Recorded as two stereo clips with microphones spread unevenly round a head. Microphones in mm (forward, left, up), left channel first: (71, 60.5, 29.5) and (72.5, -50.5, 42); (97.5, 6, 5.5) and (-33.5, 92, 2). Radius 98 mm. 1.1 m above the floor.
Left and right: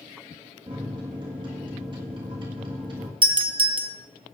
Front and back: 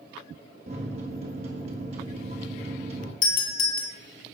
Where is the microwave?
150° right, 1.5 m.